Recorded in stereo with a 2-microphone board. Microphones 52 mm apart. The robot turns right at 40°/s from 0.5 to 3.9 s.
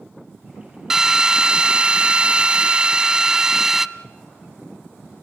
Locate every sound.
0.9 s a drill: 10° right (ahead or behind), 0.6 m